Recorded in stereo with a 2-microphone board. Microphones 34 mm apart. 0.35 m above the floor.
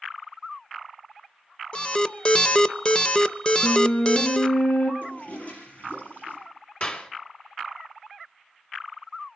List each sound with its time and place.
1.7 s an alarm: 25° left (ahead or behind), 0.6 m
3.6 s a flute: 40° left (ahead or behind), 3.5 m
5.0 s a toilet flushing: 45° left (ahead or behind), 5 m
6.8 s a clap: 40° left (ahead or behind), 2 m